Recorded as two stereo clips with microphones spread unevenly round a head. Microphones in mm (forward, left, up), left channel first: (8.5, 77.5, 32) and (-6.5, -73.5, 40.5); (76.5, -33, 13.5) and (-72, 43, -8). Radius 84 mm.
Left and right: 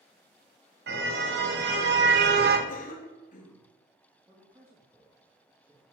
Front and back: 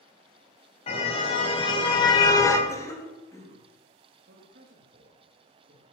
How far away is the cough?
About 3.5 m.